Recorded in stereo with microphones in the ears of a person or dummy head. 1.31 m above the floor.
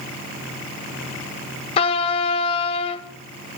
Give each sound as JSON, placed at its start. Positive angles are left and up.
{"t": 1.8, "sound": "a trumpet", "side_deg": 30, "distance_m": 0.5}